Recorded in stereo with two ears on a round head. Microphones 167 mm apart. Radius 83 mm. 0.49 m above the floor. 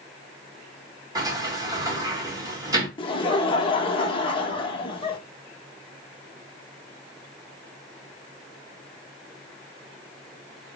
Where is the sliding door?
20° right (ahead or behind), 1.2 m.